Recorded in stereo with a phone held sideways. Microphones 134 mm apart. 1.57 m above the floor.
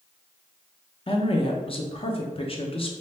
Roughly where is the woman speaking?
Left.